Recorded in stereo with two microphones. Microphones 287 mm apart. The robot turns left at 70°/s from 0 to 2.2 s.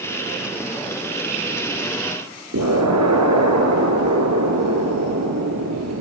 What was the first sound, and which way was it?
An explosion, 80° right.